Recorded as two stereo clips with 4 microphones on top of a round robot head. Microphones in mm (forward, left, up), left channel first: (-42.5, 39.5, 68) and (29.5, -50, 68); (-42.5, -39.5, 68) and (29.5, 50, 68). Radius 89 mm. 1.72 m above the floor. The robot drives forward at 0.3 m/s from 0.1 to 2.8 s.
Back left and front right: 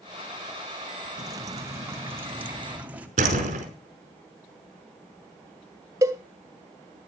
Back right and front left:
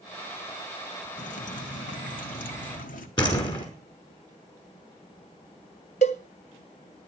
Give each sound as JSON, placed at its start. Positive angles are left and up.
{"t": 1.2, "sound": "dripping", "azimuth_deg": -110, "distance_m": 1.3}
{"t": 3.2, "sound": "a door slam", "azimuth_deg": -75, "distance_m": 5.0}
{"t": 6.0, "sound": "a cowbell", "azimuth_deg": -110, "distance_m": 0.7}